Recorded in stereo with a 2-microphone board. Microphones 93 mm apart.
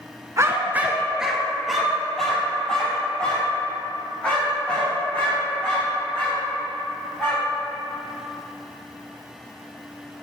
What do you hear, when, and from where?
0.4 s a dog barking: 35° right (ahead or behind), 1.3 m; by 7.5 s 15° left (ahead or behind), 10.5 m